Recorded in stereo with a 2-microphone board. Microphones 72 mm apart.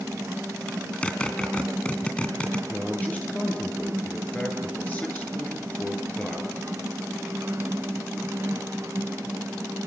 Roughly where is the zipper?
Centre.